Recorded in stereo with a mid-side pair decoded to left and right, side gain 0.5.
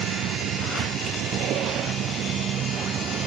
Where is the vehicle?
70° right; by 3.3 s 55° right.